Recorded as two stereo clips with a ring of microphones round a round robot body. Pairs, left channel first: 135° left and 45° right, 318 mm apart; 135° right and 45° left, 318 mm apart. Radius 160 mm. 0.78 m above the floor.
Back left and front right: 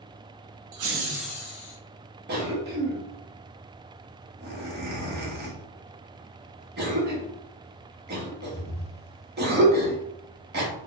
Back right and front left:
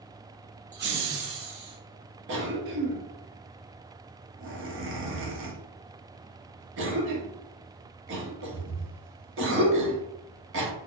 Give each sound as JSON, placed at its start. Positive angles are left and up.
{"t": 0.7, "sound": "laughter", "azimuth_deg": -20, "distance_m": 0.8}
{"t": 2.3, "sound": "a cough", "azimuth_deg": 5, "distance_m": 1.0}